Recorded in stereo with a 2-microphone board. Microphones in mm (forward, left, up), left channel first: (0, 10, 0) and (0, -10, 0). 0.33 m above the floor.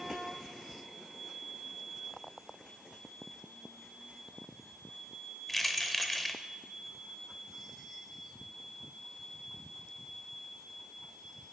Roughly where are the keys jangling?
Centre.